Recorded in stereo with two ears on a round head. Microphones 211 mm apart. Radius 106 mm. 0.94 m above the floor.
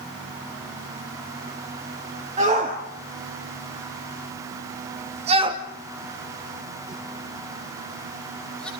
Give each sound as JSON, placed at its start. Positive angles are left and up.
{"t": 2.4, "sound": "a shout", "side_deg": -30, "distance_m": 3.0}